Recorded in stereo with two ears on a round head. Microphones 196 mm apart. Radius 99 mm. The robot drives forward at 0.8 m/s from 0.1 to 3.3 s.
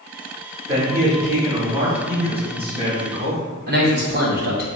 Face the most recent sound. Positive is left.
turn(degrees=-40)  # may be behind; listen again after turning